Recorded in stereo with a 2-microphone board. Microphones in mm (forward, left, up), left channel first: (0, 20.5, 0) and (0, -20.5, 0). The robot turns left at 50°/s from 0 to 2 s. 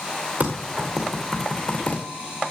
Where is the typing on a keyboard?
35° right (ahead or behind), 2.5 m; by 2.0 s 45° left (ahead or behind), 2.5 m.